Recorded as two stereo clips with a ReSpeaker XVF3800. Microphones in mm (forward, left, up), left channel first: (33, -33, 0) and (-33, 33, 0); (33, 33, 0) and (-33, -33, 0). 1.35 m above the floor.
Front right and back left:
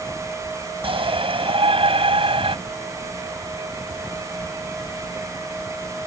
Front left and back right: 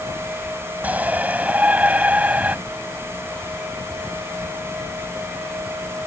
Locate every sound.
0.8 s a shout: 150° left